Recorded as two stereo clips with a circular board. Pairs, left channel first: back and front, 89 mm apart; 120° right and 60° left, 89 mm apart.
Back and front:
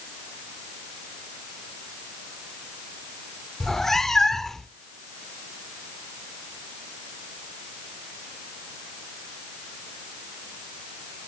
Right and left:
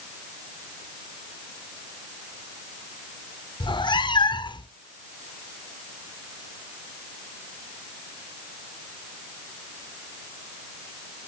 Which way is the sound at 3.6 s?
95° right.